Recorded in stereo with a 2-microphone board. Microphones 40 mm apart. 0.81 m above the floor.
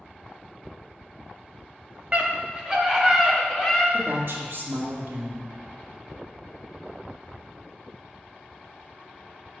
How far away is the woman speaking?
About 1.9 m.